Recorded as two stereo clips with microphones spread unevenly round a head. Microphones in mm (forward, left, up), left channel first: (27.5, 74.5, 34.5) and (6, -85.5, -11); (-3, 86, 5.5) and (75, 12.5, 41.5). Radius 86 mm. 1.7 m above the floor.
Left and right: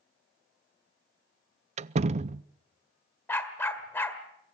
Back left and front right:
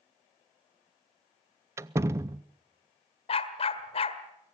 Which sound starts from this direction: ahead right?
A door slam, at 1.8 s.